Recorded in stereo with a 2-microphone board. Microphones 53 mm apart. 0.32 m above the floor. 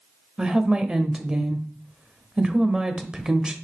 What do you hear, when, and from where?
0.4 s a woman speaking: 15° right (ahead or behind), 1.1 m